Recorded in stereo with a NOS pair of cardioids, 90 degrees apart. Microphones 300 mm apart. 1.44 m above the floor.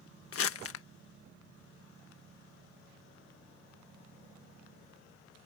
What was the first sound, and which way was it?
Crumpling, 50° left.